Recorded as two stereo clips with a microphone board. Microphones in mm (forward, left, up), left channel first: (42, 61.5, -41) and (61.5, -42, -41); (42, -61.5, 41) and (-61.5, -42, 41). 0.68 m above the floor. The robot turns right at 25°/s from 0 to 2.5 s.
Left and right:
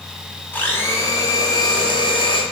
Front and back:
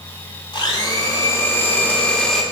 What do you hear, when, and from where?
0.5 s a blender: 30° left, 0.7 m; by 2.4 s 75° left, 0.7 m